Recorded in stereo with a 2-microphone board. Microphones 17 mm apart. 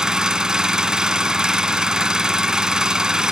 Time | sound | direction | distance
0.0 | an engine running | 50° right (ahead or behind) | 1.3 m